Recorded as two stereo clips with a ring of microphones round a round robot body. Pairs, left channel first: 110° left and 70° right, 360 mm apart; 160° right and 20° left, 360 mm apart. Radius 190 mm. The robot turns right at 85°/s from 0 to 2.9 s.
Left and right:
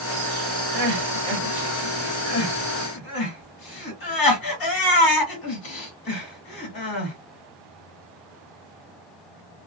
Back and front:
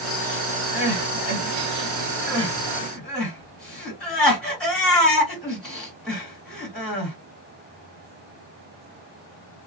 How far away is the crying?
About 1.8 m.